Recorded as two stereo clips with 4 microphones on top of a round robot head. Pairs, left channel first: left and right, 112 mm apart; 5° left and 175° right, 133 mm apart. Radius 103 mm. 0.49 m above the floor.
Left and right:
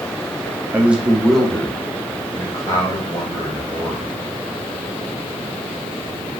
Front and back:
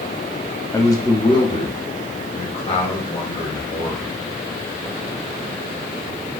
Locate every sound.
0.7 s a man speaking: 35° right, 1.0 m; by 4.1 s 40° left, 2.5 m